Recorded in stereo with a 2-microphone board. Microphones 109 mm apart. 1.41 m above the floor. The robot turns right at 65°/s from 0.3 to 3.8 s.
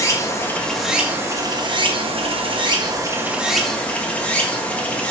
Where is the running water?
145° left, 1.0 m; by 5.1 s 15° left, 1.0 m.